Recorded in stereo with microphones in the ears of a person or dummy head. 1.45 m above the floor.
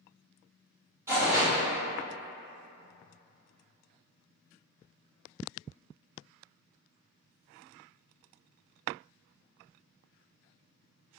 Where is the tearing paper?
15° right (ahead or behind), 0.8 m.